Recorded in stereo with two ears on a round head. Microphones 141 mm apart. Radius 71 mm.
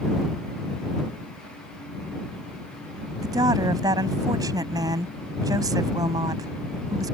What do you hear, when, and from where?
3.2 s a woman speaking: 20° right (ahead or behind)